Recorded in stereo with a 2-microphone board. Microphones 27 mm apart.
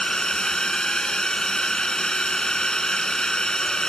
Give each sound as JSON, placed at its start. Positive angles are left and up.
{"t": 0.0, "sound": "a drone", "side_deg": 30}